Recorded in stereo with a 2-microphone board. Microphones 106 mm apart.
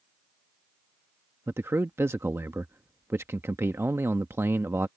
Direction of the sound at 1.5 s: 25° right (ahead or behind).